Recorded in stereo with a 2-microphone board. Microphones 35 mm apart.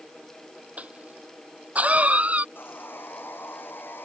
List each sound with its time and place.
0.8 s a cough: 40° right (ahead or behind)
2.5 s sawing: 70° left (ahead or behind)